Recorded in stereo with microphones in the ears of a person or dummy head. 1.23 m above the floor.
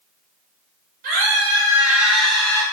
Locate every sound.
1.0 s a scream: 45° right (ahead or behind), 1.1 m; by 2.6 s 15° left (ahead or behind), 1.5 m